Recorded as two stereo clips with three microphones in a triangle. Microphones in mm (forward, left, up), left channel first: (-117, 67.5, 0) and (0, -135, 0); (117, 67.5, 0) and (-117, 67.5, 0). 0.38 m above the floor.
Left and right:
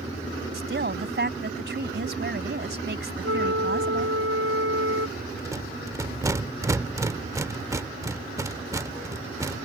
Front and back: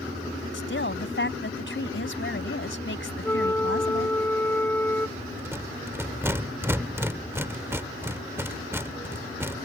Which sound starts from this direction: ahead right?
A woman speaking, at 0.5 s.